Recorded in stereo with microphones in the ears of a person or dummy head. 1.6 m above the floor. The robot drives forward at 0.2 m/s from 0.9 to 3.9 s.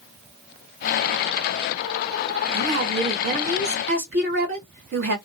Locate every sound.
2.5 s a woman speaking: 60° right (ahead or behind), 1.8 m; by 5.2 s 55° right (ahead or behind), 1.9 m